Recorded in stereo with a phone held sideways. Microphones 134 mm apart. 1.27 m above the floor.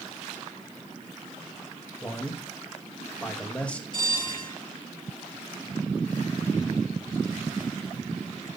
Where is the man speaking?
10° left (ahead or behind), 2 m.